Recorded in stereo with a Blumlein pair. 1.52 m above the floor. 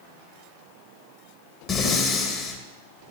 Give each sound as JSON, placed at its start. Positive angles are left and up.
{"t": 1.7, "sound": "breathing", "azimuth_deg": 25, "distance_m": 1.8}